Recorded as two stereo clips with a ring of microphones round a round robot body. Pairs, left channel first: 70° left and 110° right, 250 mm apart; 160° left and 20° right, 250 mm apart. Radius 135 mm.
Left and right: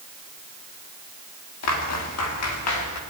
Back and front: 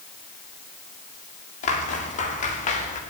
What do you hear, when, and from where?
1.6 s footsteps: 95° left, 7.5 m